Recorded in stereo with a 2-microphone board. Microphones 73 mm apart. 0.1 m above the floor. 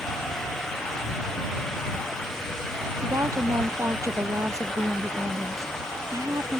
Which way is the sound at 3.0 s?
45° right (ahead or behind).